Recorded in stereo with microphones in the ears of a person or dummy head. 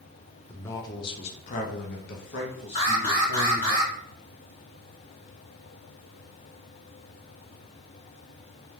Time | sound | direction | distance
0.5 | a man speaking | 15° left (ahead or behind) | 0.8 m
2.8 | an alarm | 40° left (ahead or behind) | 1.9 m